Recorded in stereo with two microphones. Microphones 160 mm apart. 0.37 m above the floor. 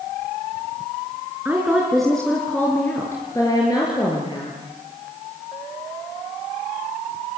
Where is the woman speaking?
10° right (ahead or behind), 4 m; by 4.5 s 30° left (ahead or behind), 7 m.